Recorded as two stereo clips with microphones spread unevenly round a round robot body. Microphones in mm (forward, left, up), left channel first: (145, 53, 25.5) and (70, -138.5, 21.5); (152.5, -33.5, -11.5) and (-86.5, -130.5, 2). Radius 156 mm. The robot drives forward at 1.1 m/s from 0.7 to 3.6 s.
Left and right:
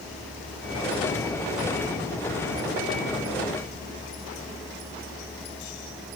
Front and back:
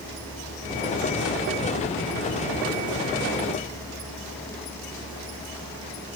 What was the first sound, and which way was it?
Only background noise.